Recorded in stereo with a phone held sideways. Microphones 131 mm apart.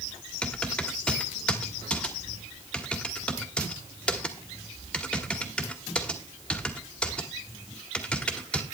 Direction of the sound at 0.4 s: 5° left (ahead or behind).